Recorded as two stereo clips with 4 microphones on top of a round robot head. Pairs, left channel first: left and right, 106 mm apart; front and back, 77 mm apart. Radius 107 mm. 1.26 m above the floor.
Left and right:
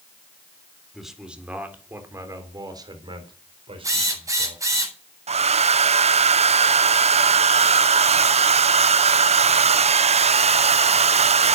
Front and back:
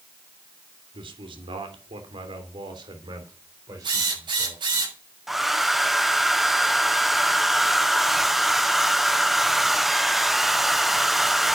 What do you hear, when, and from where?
0.9 s a man speaking: straight behind, 3.5 m; by 4.6 s 120° right, 4.5 m
3.8 s a drill: 150° right, 7 m
5.3 s a hair dryer: 95° right, 0.7 m